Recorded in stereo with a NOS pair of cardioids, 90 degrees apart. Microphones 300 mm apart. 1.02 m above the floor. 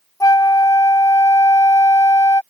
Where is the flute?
10° left.